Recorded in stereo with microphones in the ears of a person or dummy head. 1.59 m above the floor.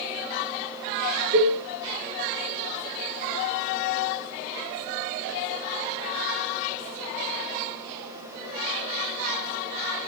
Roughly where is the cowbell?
Right.